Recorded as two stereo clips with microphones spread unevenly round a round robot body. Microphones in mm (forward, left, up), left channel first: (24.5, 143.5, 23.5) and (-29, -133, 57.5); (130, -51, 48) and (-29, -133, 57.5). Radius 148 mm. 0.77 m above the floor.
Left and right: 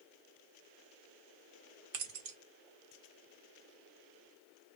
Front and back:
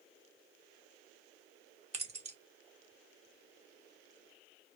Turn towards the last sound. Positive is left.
turn(degrees=-100)